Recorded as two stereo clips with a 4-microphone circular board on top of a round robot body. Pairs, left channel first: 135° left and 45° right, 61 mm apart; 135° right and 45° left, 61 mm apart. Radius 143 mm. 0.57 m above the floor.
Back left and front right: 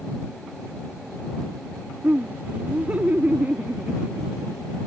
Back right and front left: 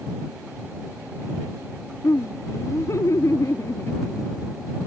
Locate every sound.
2.0 s laughter: 110° right